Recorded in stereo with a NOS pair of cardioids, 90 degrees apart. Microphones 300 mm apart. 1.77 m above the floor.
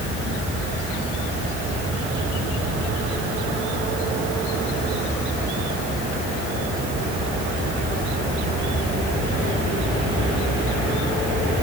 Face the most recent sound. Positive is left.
No sound to turn to.